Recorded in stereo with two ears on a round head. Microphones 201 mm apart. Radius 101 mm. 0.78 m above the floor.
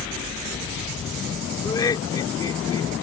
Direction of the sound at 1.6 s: 20° left (ahead or behind).